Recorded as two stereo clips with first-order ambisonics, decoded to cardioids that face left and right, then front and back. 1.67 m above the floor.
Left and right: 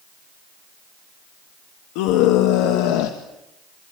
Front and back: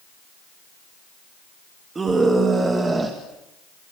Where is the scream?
105° left, 3 m; by 3.2 s 100° left, 2 m.